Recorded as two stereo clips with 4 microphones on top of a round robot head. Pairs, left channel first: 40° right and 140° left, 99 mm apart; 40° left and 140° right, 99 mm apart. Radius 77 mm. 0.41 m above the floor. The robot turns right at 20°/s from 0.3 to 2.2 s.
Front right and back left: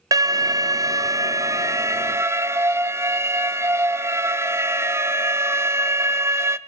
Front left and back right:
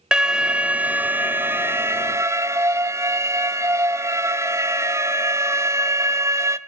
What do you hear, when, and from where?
0.1 s an alarm: 145° left, 0.9 m; by 6.6 s straight behind, 0.9 m